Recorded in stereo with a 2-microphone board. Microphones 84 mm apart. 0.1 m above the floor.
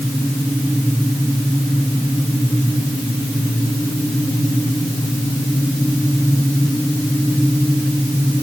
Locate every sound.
Only background noise.